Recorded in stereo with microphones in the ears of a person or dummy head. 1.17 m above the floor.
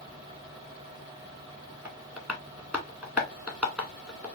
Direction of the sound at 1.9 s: 10° right (ahead or behind).